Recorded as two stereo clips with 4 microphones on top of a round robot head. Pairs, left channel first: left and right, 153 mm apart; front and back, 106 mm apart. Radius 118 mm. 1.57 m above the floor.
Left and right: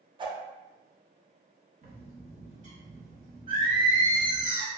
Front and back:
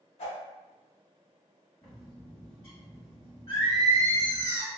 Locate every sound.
0.2 s a whoosh: 30° right, 0.6 m
1.8 s a bird: 65° right, 0.7 m
3.5 s singing: 155° right, 0.9 m